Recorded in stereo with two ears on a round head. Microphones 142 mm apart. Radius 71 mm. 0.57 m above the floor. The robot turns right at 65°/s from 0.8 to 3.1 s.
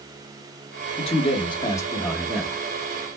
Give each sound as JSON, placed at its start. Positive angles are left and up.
{"t": 1.0, "sound": "a man speaking", "azimuth_deg": 95, "distance_m": 1.5}